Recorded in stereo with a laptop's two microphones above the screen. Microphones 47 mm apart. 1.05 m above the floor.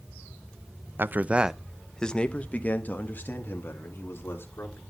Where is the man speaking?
50° right (ahead or behind), 0.6 m; by 4.8 s 50° left (ahead or behind), 2.5 m.